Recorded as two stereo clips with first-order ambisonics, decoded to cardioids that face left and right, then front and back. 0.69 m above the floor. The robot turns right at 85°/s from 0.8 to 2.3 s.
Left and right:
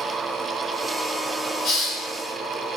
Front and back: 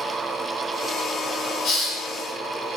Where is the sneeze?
I don't hear a sneeze.